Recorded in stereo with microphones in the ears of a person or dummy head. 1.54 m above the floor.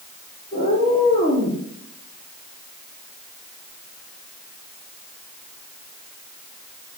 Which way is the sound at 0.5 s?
30° left (ahead or behind).